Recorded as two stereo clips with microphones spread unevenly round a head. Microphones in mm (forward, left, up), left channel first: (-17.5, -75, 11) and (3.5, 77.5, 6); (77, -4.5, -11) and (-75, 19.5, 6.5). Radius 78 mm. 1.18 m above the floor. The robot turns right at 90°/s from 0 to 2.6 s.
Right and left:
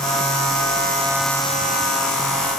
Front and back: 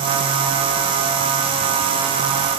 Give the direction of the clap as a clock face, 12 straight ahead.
I don't hear a clap.